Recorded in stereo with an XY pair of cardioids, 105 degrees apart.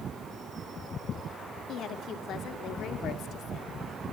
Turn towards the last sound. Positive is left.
turn(degrees=70)